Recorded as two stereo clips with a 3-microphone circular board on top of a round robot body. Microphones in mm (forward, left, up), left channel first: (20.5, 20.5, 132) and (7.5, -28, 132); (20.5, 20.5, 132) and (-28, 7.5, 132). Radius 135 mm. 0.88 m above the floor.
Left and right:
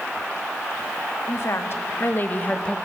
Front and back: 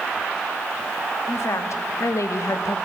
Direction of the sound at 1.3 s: 40° left.